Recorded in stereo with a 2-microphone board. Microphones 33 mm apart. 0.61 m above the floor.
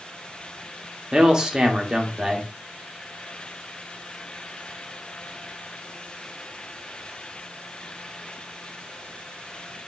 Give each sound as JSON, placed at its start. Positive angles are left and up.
{"t": 1.1, "sound": "a man speaking", "side_deg": -20, "distance_m": 1.0}